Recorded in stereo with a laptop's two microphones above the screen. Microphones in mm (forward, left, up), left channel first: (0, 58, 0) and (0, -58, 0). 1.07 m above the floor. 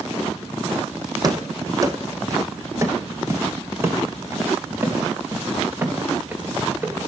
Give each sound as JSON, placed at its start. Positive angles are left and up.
{"t": 1.2, "sound": "running footsteps", "side_deg": -35, "distance_m": 3.0}